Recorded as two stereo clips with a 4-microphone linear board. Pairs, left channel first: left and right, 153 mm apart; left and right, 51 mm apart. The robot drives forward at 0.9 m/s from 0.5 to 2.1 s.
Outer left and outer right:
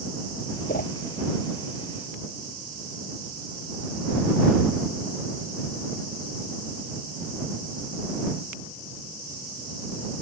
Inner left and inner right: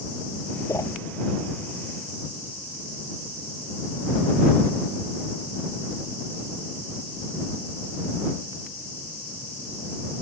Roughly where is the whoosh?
Left.